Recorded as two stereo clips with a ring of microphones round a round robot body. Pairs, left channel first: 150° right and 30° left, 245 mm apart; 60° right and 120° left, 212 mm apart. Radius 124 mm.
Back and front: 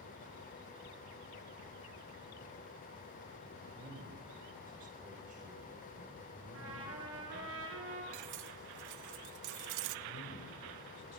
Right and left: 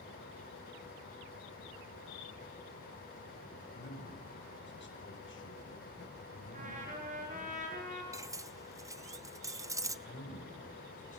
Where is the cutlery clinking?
45° left, 0.9 m.